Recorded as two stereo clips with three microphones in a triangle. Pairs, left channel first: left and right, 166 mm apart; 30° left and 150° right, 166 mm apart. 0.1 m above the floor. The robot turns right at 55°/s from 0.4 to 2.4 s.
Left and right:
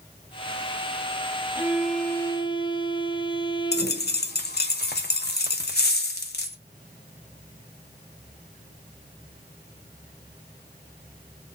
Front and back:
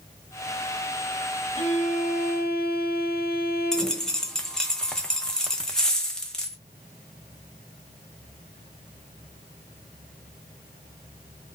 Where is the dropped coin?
115° left, 0.6 m.